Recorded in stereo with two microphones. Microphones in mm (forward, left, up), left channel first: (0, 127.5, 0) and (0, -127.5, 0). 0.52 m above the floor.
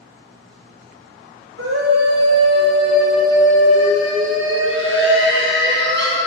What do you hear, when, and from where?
1.6 s a scream: 55° right (ahead or behind), 2.5 m; by 6.2 s 45° right (ahead or behind), 5 m